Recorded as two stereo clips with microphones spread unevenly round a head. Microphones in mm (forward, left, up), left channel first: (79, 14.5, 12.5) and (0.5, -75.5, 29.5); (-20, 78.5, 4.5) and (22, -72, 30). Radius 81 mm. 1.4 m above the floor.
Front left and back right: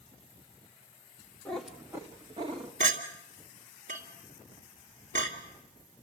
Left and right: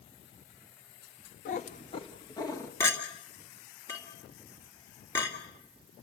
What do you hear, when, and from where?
1.4 s a cat meowing: 140° left, 1.0 m; by 2.7 s straight behind, 1.4 m
2.8 s a clink: straight behind, 2.5 m